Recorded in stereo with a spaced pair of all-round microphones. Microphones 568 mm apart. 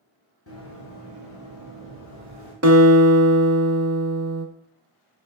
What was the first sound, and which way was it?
Running footsteps, 25° left (ahead or behind).